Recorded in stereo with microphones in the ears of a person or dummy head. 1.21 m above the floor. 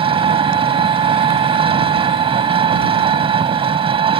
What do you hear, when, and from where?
0.0 s an engine running: 30° right (ahead or behind)